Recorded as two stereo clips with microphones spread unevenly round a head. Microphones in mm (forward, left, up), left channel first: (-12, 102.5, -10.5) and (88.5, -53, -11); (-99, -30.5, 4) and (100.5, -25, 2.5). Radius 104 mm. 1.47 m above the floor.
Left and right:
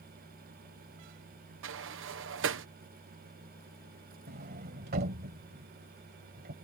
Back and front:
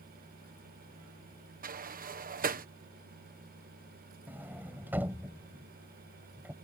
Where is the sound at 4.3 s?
80° right.